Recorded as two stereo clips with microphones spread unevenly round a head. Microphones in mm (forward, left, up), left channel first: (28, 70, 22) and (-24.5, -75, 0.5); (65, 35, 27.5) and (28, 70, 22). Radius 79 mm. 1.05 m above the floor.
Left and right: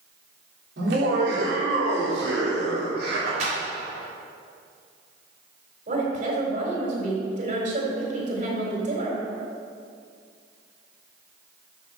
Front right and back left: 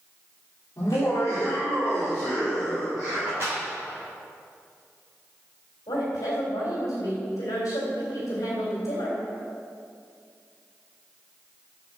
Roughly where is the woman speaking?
Ahead right.